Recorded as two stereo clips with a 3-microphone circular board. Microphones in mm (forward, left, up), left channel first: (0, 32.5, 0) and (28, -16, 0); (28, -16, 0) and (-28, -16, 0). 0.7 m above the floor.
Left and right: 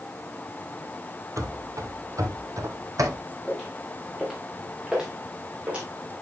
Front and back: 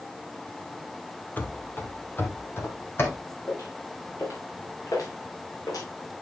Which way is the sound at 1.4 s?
55° right.